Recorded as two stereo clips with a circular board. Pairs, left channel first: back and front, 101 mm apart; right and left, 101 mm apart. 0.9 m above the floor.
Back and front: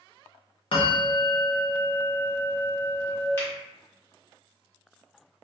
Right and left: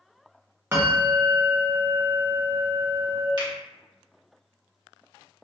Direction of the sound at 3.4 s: 120° left.